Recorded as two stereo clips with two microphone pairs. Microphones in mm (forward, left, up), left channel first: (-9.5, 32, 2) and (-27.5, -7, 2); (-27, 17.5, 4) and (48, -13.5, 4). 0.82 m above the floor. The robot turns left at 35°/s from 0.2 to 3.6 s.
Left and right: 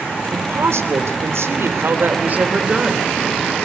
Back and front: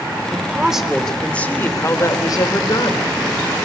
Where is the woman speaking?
90° right, 3 m; by 3.1 s 170° left, 3 m.